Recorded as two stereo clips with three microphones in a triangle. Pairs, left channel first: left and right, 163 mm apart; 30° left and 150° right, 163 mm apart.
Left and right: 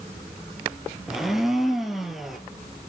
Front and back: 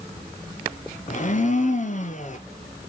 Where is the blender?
Straight ahead, 1.2 m.